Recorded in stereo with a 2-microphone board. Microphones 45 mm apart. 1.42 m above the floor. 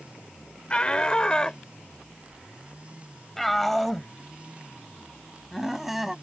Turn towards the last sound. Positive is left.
turn(degrees=-5)  # may be behind; listen again after turning